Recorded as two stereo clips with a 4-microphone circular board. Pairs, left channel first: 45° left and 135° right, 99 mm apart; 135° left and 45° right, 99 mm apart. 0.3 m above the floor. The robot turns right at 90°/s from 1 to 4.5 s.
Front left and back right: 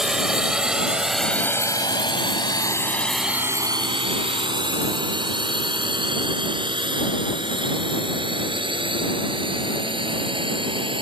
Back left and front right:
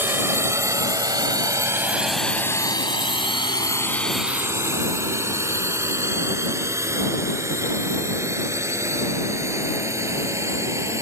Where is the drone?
55° right; by 11.0 s 105° right.